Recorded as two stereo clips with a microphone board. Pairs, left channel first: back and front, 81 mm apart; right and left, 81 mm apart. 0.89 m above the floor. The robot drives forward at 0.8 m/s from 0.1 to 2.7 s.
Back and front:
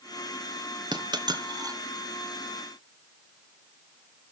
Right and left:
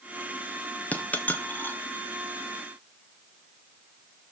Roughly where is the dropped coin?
Ahead.